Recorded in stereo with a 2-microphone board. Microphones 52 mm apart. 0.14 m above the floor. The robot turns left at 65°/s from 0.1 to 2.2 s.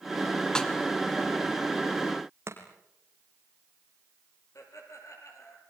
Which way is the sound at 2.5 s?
55° right (ahead or behind).